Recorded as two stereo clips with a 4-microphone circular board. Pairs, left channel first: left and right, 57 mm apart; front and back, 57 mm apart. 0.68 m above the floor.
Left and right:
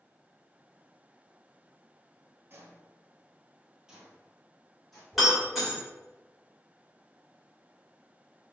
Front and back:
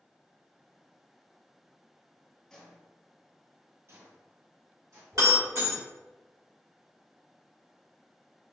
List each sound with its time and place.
2.5 s footsteps: 70° right, 0.9 m; by 5.0 s 175° left, 1.8 m
5.1 s breaking glass: straight behind, 1.6 m